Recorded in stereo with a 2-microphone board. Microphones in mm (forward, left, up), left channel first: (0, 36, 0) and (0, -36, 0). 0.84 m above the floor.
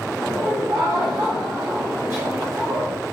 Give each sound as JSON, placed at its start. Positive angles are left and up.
{"t": 0.2, "sound": "laughter", "side_deg": -45, "distance_m": 1.8}